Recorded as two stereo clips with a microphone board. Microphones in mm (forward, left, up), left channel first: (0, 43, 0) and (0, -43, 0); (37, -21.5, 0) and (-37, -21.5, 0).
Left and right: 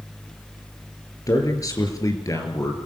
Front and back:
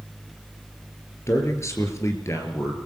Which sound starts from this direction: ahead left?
A man speaking, at 1.3 s.